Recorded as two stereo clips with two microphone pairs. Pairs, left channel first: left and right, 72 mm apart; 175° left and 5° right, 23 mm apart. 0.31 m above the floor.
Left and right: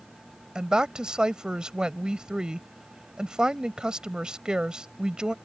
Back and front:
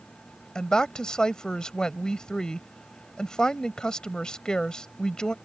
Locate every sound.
0.6 s a woman speaking: 165° right